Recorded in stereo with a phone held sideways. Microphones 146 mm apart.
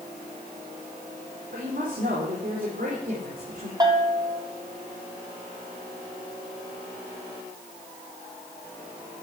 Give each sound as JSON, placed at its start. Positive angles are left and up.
{"t": 1.5, "sound": "a woman speaking", "side_deg": -65, "distance_m": 4.5}
{"t": 3.8, "sound": "a bell", "side_deg": -25, "distance_m": 2.5}